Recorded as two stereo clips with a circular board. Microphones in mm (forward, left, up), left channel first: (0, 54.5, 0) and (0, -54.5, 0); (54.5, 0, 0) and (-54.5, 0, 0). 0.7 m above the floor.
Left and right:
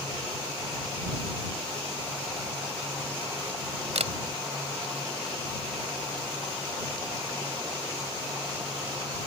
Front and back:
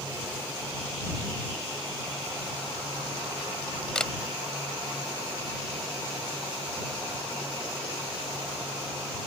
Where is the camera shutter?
85° right.